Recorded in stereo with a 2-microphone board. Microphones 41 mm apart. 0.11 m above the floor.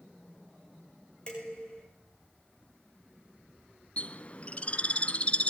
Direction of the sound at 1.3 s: 25° left (ahead or behind).